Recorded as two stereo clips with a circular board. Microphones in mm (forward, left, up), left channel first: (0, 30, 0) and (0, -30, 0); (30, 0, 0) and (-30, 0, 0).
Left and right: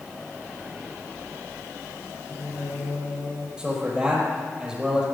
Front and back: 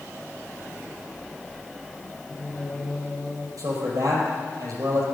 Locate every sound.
2.3 s singing: 90° left, 7.5 m
3.6 s a man speaking: 170° right, 5 m